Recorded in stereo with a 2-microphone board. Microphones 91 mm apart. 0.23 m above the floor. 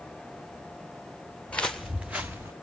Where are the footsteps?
15° left (ahead or behind), 1.2 m; by 2.5 s 30° right (ahead or behind), 1.4 m.